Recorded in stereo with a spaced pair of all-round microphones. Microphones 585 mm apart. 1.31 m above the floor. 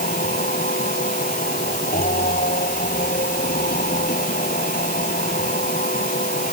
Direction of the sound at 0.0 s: 15° left (ahead or behind).